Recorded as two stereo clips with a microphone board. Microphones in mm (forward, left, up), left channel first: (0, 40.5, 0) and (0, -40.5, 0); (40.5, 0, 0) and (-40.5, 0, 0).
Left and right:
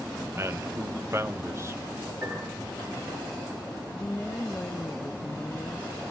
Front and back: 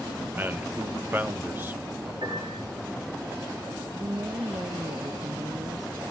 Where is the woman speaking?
150° left, 0.9 m.